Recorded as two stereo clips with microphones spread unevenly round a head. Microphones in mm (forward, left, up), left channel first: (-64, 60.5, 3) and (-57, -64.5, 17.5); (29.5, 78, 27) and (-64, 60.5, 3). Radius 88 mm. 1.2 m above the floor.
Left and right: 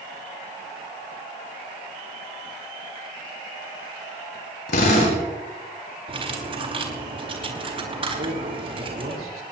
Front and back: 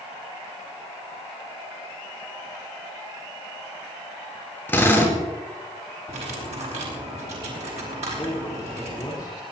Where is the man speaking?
55° right, 3.5 m.